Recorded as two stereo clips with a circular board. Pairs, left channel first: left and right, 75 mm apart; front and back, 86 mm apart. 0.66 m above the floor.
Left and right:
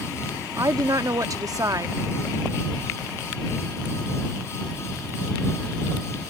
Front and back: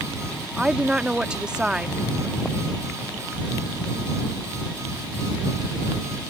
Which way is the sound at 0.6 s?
105° right.